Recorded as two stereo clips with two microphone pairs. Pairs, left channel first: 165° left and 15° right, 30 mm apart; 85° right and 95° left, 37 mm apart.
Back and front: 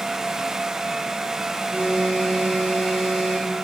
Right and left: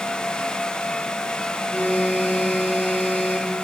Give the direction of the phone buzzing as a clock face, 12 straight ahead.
2 o'clock.